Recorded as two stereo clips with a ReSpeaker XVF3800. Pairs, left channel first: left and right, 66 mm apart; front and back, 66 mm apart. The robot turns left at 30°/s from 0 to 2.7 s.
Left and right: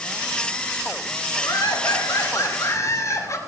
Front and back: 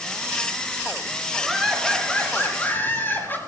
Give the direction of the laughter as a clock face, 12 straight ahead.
9 o'clock.